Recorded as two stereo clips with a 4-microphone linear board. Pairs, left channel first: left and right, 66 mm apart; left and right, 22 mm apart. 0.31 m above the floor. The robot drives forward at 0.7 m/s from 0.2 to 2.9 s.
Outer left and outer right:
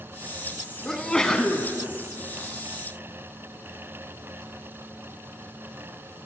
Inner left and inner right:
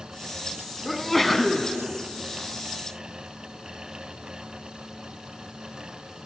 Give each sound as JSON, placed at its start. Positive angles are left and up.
{"t": 0.8, "sound": "a sneeze", "side_deg": 10, "distance_m": 2.5}